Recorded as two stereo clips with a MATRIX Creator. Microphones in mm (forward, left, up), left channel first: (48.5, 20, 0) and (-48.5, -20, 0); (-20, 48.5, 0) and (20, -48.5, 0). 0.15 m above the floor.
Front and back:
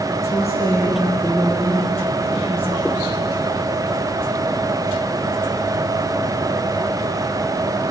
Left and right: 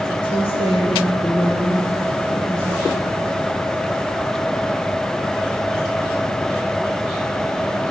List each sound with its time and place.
0.2 s a woman speaking: 80° left, 4 m; by 3.1 s 95° left, 7.5 m